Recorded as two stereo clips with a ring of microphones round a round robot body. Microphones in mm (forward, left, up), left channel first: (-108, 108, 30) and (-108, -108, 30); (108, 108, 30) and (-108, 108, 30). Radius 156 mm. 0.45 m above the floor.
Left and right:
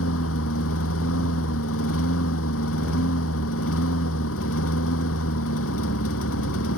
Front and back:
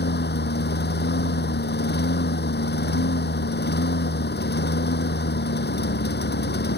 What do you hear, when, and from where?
0.0 s a lawn mower: 40° left